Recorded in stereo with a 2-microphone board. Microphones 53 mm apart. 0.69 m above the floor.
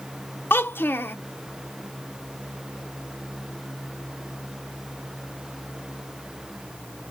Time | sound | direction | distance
0.5 | a child speaking | 45° left (ahead or behind) | 0.5 m